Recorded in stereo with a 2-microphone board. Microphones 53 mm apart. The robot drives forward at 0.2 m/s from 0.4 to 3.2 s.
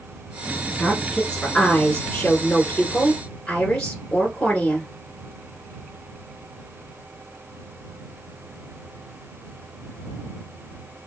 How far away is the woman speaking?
About 1.3 m.